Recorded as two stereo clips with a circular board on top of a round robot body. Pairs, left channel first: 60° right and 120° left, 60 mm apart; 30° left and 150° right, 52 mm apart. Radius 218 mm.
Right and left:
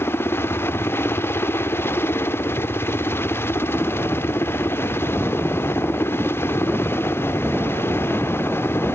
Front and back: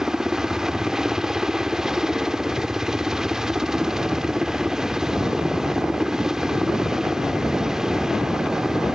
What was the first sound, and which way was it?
A helicopter, 75° right.